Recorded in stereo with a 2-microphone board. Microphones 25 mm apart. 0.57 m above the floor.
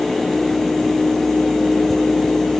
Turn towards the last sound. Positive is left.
No sound to turn to.